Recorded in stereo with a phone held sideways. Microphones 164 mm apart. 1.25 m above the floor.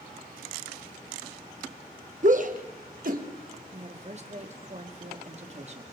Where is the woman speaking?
40° right (ahead or behind), 2 m.